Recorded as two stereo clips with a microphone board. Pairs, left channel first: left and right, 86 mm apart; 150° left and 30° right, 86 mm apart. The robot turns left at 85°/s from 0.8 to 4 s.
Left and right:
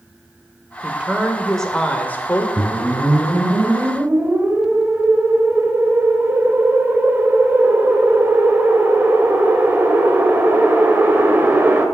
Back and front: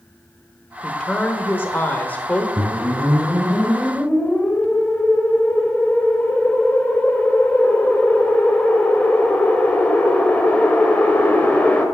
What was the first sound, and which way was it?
A woman speaking, 130° right.